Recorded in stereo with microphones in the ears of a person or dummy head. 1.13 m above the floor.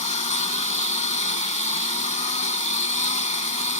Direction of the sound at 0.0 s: 40° left (ahead or behind).